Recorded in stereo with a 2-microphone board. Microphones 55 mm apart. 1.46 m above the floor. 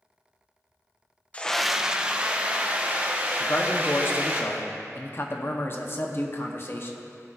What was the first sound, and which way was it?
A scream, 25° left (ahead or behind).